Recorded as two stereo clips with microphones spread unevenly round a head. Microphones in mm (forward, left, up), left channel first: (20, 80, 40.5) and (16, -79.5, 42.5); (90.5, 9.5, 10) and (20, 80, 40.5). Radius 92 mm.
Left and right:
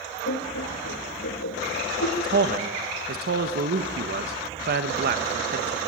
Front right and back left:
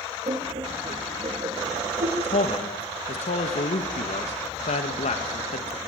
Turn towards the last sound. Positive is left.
turn(degrees=-65)